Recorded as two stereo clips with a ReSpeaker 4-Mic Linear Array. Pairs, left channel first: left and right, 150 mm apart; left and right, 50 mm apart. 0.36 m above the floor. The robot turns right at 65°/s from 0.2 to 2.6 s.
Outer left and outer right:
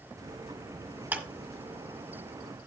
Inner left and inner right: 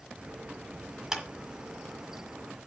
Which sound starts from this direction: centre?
A clap, at 1.1 s.